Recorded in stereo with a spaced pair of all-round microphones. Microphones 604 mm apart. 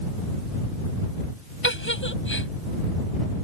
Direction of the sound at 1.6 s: 20° left (ahead or behind).